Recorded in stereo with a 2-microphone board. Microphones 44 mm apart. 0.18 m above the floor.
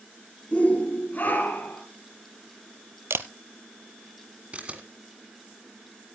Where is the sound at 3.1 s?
60° right (ahead or behind), 0.7 m.